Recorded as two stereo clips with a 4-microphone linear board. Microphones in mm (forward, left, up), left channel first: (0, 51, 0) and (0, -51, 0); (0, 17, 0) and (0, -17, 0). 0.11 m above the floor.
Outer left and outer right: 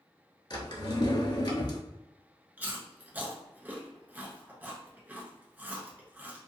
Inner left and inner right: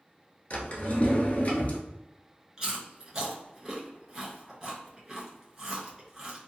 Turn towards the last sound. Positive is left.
turn(degrees=-20)  # may be behind; listen again after turning